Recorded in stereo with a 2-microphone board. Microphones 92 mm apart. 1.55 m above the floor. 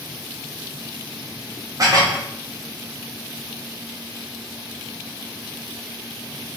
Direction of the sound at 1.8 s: 40° right (ahead or behind).